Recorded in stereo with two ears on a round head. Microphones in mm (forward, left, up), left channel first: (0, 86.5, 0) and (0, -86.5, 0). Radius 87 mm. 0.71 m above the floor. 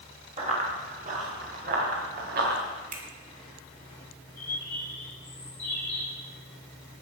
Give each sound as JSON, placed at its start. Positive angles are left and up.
{"t": 0.4, "sound": "running footsteps", "side_deg": -35, "distance_m": 6.0}
{"t": 2.9, "sound": "a finger snap", "side_deg": -40, "distance_m": 2.5}
{"t": 4.4, "sound": "a bird", "side_deg": 10, "distance_m": 8.0}